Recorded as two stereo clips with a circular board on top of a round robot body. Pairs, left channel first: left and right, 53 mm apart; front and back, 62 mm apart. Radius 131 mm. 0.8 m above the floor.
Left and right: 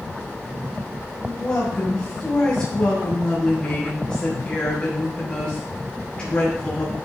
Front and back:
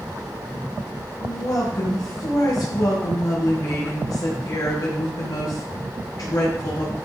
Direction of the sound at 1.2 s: 20° left.